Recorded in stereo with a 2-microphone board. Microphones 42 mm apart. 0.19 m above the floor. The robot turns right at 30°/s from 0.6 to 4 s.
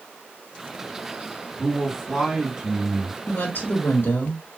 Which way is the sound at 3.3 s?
60° left (ahead or behind).